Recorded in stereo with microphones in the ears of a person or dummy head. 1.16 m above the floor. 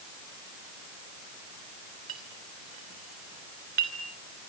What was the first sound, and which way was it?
A clink, 55° right (ahead or behind).